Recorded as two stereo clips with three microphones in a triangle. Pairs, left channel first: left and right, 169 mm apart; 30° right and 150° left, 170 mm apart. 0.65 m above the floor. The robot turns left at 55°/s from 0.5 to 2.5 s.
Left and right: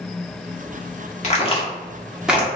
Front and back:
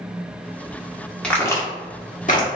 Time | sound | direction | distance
1.2 | a crack | 55° left | 1.4 m